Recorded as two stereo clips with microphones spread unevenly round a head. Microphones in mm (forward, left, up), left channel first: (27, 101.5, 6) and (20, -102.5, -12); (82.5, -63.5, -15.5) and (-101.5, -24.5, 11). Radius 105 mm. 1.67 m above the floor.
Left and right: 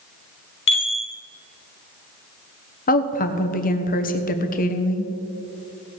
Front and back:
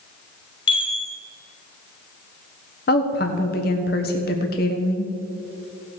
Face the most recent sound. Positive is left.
turn(degrees=40)